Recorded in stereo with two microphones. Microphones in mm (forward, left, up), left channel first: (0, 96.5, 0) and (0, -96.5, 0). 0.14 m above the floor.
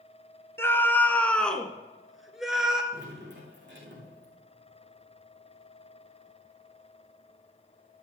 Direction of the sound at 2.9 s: 70° right (ahead or behind).